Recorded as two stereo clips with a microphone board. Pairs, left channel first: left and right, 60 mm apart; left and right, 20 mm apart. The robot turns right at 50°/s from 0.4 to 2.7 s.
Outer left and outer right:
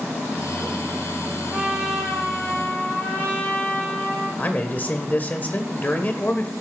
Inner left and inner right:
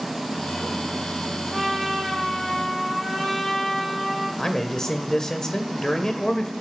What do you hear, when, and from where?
1.5 s a trumpet: 20° right, 5 m; by 4.3 s 40° left, 5 m
4.4 s a man speaking: 30° left (ahead or behind), 1.2 m